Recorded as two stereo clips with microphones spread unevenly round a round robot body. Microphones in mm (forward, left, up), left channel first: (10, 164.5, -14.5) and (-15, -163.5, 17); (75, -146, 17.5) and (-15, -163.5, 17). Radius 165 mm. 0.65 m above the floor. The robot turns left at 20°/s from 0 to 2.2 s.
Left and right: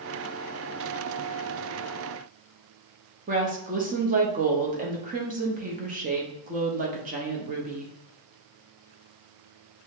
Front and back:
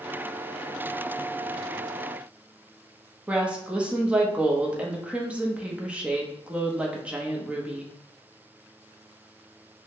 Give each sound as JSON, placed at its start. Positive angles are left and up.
{"t": 3.3, "sound": "a woman speaking", "azimuth_deg": -125, "distance_m": 0.7}